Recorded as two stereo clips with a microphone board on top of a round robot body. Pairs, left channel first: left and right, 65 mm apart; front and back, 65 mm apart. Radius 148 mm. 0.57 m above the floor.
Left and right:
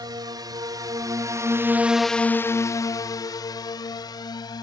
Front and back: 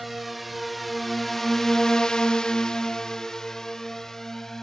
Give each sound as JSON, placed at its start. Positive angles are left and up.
{"t": 0.0, "sound": "a drone", "azimuth_deg": -90}